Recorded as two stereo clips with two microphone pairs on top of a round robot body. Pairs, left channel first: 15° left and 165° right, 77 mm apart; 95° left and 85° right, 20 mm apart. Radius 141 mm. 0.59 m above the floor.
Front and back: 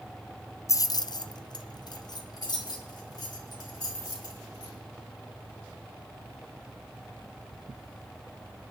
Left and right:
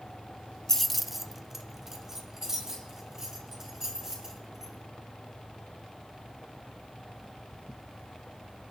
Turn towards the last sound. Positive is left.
turn(degrees=-20)